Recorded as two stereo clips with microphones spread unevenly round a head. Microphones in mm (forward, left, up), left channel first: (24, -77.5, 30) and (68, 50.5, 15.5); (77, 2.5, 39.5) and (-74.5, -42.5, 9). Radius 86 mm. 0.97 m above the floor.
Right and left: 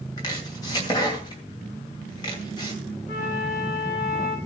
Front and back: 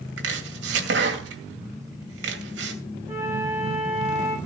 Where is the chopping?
175° right, 2.5 m.